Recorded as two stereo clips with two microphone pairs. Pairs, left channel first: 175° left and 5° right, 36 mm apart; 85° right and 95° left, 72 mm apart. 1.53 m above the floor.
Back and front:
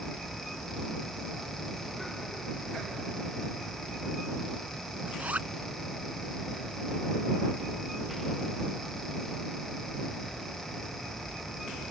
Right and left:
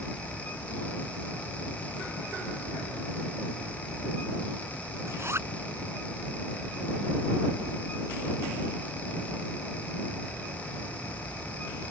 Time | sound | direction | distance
5.1 | a zipper | 40° left | ?